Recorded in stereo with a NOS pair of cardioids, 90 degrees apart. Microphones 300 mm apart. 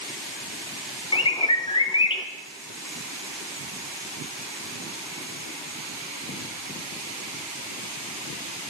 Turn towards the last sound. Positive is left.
turn(degrees=20)